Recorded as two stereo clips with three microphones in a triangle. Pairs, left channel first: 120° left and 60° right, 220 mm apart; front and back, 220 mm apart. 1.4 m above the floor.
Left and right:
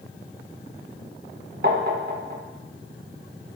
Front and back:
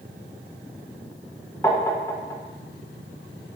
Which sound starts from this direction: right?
Tapping, at 1.6 s.